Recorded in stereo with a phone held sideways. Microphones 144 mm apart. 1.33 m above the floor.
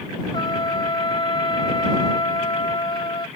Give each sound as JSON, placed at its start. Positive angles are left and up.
{"t": 0.3, "sound": "a trumpet", "side_deg": 35}